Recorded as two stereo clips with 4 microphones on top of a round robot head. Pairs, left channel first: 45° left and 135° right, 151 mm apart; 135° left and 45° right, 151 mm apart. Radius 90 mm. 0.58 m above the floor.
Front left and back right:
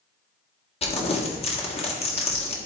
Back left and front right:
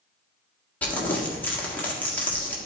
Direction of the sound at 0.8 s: 60° left.